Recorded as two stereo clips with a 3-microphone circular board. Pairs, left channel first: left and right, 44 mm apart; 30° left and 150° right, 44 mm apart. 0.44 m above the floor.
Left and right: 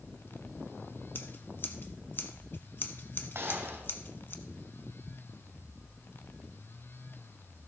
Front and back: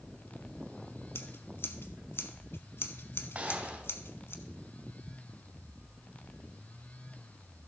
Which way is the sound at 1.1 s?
50° left.